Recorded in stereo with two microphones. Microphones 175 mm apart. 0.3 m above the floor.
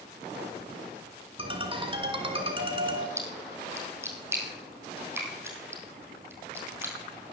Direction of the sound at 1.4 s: 30° right (ahead or behind).